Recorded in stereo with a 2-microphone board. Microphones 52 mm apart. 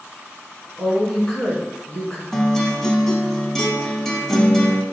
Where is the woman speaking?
10° left (ahead or behind), 1.7 m.